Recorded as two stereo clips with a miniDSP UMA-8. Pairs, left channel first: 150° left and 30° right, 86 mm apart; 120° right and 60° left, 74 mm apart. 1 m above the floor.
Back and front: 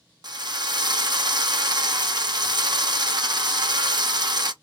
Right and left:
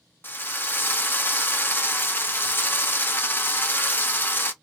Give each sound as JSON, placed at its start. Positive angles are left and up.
{"t": 0.2, "sound": "a drill", "azimuth_deg": -60, "distance_m": 0.7}